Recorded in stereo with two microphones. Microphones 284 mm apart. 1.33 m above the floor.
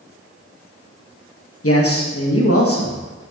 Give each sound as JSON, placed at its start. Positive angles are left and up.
{"t": 1.6, "sound": "a man speaking", "side_deg": 50, "distance_m": 1.4}